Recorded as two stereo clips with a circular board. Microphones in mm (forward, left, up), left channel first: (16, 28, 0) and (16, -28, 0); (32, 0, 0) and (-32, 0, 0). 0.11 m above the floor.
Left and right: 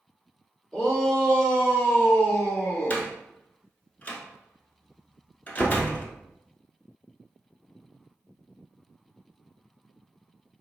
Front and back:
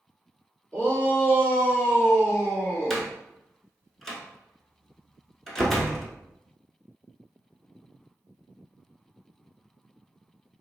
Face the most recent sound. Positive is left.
turn(degrees=75)